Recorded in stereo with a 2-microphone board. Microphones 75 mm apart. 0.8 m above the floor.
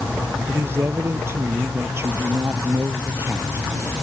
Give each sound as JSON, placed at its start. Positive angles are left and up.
{"t": 0.5, "sound": "a man speaking", "side_deg": -35}